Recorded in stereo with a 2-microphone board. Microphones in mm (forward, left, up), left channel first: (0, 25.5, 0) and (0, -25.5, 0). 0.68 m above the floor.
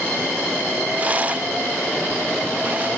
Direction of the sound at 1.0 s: 30° right (ahead or behind).